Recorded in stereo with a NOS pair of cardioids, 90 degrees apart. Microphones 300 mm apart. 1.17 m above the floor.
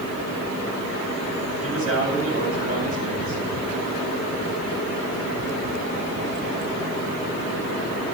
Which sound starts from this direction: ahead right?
A man speaking, at 1.6 s.